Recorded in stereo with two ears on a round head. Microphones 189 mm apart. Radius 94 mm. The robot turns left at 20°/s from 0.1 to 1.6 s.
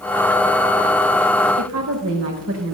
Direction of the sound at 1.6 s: 75° right (ahead or behind).